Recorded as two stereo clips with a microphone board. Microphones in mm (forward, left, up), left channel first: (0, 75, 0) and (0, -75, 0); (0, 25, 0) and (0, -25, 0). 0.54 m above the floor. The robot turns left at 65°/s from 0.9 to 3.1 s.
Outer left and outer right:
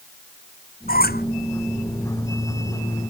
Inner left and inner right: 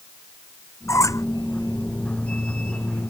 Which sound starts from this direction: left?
A squeak, at 0.9 s.